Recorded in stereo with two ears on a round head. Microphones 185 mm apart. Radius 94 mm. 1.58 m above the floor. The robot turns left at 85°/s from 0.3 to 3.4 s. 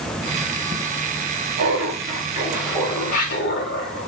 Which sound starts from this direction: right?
Laughter, at 1.6 s.